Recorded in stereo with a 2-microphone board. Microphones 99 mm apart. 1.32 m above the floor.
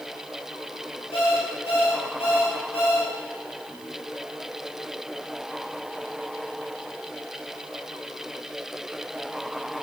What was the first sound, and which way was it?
An alarm clock, 75° left (ahead or behind).